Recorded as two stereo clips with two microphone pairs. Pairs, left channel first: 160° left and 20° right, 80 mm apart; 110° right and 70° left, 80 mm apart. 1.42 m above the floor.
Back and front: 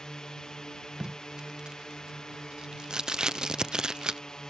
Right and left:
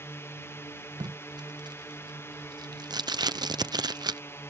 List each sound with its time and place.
0.0 s a drone: 125° right
1.0 s tape being pulled: 55° left